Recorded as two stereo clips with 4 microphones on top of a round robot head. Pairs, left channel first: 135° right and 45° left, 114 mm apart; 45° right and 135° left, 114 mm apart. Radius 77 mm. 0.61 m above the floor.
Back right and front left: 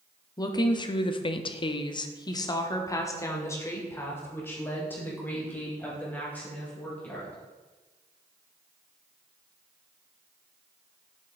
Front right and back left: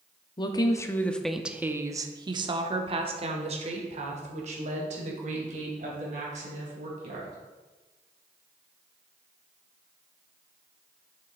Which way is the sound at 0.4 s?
85° right.